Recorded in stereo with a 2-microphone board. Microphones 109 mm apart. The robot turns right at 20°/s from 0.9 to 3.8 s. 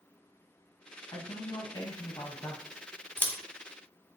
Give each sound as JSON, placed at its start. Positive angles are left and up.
{"t": 1.1, "sound": "a man speaking", "azimuth_deg": 95, "distance_m": 1.1}
{"t": 3.2, "sound": "scissors", "side_deg": 20, "distance_m": 0.5}